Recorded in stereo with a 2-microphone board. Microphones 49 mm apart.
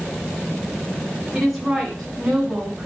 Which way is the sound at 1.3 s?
5° right (ahead or behind).